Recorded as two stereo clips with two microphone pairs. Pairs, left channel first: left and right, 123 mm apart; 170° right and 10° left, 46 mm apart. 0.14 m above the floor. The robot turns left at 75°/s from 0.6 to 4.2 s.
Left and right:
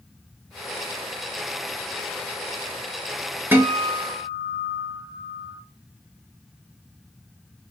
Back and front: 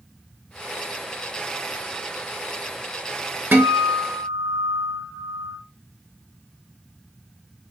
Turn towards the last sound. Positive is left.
turn(degrees=-70)